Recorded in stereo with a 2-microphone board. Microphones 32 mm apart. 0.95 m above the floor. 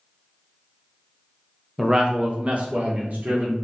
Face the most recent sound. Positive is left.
turn(degrees=-60)  # may be behind; listen again after turning